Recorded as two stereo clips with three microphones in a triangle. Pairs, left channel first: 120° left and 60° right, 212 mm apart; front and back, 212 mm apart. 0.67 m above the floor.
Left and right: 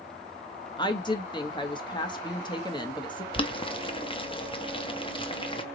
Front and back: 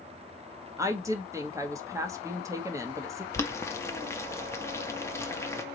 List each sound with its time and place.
0.8 s a woman speaking: 130° left, 0.9 m
3.3 s boiling: 70° left, 0.7 m